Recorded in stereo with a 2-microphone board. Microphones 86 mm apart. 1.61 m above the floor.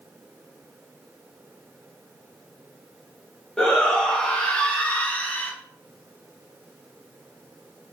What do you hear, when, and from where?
3.6 s a shout: 10° left (ahead or behind), 2.5 m; by 5.5 s 20° left (ahead or behind), 1.8 m